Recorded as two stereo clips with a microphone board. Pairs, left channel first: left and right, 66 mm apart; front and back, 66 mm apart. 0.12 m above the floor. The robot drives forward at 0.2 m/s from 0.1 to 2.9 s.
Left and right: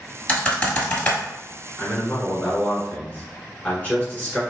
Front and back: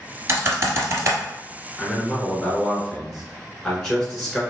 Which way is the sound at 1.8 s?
65° left.